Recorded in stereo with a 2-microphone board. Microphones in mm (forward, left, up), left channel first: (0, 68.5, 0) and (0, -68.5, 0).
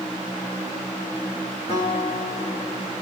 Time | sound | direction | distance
1.7 | a guitar | 40° left (ahead or behind) | 5.5 m